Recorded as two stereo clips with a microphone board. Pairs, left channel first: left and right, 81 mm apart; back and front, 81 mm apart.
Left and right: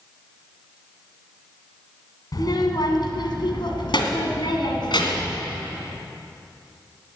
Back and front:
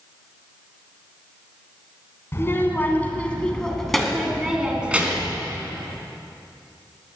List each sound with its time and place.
2.3 s a child speaking: 125° left, 2.5 m; by 5.4 s 70° left, 2.5 m